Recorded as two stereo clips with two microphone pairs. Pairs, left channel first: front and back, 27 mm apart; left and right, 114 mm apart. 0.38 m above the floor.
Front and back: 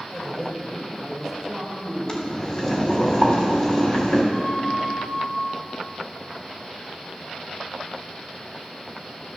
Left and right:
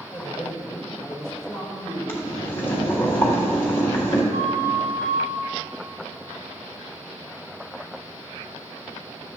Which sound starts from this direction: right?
A flute, at 4.3 s.